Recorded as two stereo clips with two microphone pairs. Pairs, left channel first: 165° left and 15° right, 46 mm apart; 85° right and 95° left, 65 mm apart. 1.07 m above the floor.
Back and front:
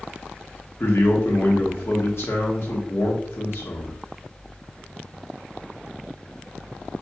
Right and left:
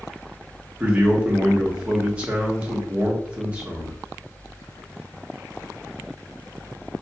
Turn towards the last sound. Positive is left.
turn(degrees=165)